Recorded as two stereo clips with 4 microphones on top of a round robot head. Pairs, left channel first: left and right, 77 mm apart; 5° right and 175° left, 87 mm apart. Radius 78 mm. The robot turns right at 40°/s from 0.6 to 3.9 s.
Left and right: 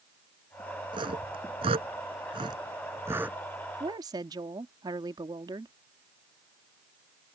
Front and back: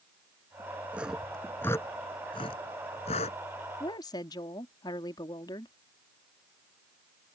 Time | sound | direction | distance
0.9 | sawing | 105° right | ?
3.8 | a woman speaking | 55° right | ?